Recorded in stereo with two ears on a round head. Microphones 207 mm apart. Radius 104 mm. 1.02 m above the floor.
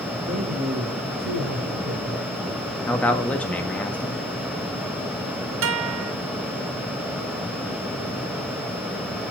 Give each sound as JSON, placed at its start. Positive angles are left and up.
{"t": 0.2, "sound": "a man speaking", "side_deg": -35, "distance_m": 2.5}
{"t": 2.9, "sound": "a man speaking", "side_deg": 5, "distance_m": 1.6}
{"t": 5.6, "sound": "a guitar", "side_deg": -60, "distance_m": 1.2}